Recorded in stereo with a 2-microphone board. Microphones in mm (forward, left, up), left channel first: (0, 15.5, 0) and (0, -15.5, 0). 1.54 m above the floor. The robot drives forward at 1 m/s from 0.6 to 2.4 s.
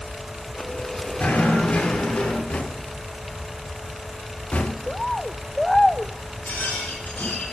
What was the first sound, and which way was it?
Knocking, 70° left (ahead or behind).